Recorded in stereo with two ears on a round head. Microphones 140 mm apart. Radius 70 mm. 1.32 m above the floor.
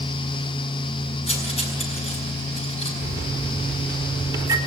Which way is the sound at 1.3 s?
40° left (ahead or behind).